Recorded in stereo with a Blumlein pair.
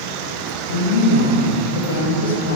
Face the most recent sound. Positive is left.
turn(degrees=60)